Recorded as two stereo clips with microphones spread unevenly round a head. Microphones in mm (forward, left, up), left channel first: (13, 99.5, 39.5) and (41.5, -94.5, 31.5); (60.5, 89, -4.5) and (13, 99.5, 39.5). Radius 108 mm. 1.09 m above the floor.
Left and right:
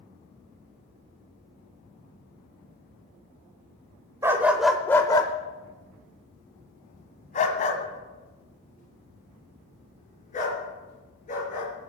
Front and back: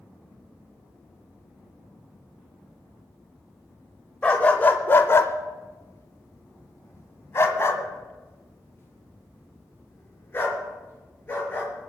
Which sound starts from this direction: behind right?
A dog barking, at 4.2 s.